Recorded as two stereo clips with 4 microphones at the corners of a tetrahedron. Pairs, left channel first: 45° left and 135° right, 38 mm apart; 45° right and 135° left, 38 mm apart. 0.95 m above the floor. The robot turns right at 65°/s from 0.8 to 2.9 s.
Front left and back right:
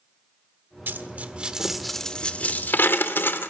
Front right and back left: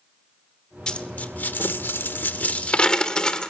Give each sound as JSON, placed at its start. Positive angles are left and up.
{"t": 0.9, "sound": "a dropped coin", "azimuth_deg": -110, "distance_m": 1.4}